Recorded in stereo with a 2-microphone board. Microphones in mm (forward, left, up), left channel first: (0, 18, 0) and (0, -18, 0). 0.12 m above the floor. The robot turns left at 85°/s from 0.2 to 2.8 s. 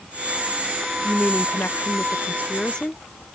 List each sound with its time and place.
1.0 s a woman speaking: 170° left; by 3.0 s 20° left